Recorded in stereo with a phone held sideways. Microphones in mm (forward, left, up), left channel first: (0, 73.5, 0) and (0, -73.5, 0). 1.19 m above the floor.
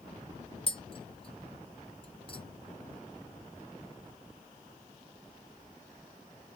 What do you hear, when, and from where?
0.7 s tapping: 35° left (ahead or behind), 0.8 m